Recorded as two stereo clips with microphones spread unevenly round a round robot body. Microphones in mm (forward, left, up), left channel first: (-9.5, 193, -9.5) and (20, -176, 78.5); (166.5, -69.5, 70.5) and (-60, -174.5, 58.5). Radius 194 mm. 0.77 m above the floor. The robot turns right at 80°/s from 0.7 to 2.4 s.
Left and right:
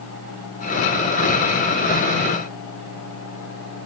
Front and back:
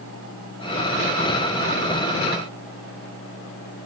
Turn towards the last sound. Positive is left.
No sound to turn to.